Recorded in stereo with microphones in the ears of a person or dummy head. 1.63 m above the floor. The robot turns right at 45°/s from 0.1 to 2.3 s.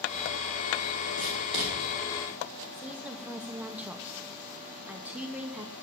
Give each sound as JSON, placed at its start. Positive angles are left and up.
{"t": 1.2, "sound": "writing", "side_deg": 50, "distance_m": 6.0}
{"t": 2.7, "sound": "a woman speaking", "side_deg": -10, "distance_m": 1.0}